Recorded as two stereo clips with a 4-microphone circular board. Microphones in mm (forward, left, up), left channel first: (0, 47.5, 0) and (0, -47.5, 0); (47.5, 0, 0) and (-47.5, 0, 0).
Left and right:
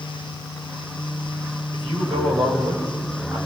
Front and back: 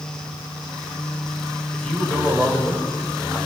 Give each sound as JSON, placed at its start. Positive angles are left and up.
{"t": 1.7, "sound": "a man speaking", "azimuth_deg": -85, "distance_m": 6.5}